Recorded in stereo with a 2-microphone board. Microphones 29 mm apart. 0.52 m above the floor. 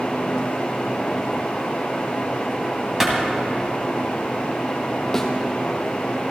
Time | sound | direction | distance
3.0 | a clap | 15° right (ahead or behind) | 2.5 m
5.1 | a thud | 15° left (ahead or behind) | 1.8 m